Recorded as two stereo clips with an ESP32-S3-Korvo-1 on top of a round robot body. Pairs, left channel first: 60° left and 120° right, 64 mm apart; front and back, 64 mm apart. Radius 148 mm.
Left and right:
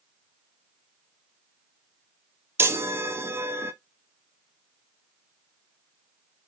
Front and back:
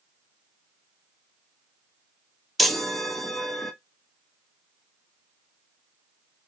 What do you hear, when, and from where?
2.6 s a chime: 90° right, 1.1 m